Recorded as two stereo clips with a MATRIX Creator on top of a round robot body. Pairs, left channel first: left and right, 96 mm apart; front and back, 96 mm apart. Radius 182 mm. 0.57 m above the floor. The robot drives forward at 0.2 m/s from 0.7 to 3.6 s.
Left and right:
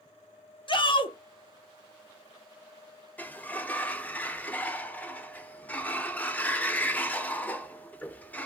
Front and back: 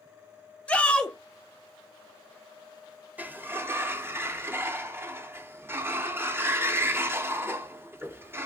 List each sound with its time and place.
0.7 s a shout: 75° left, 1.1 m; by 1.2 s 80° left, 1.1 m
3.2 s a sliding door: 135° left, 0.7 m; by 8.5 s 145° left, 0.7 m